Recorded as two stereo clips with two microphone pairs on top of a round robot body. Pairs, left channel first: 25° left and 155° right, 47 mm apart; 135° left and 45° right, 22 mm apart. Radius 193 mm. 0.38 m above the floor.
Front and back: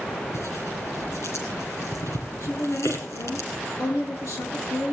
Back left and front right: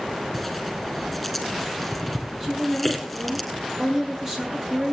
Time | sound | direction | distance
0.3 | tearing paper | 45° left | 7.5 m
2.4 | a woman speaking | 20° left | 8.5 m